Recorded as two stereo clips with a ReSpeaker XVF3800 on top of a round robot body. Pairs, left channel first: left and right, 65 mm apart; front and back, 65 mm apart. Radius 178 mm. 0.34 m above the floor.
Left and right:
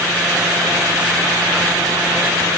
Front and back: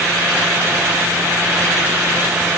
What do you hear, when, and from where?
Only background noise.